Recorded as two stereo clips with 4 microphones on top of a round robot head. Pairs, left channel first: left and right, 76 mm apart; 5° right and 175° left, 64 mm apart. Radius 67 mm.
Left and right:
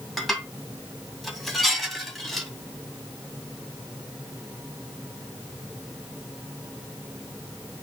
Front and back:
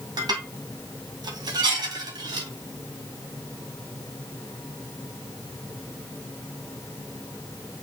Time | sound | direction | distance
0.2 | dishes clattering | straight behind | 2.5 m